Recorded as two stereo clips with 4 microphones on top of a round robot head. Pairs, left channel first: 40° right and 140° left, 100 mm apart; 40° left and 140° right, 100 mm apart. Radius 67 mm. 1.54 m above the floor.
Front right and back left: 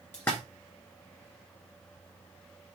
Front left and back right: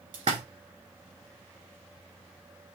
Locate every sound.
0.1 s a splash: 105° right, 1.5 m